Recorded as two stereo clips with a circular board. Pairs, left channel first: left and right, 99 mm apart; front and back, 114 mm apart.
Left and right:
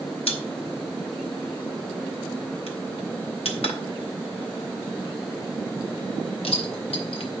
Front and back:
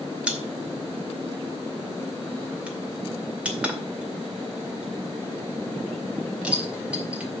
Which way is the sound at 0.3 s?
100° left.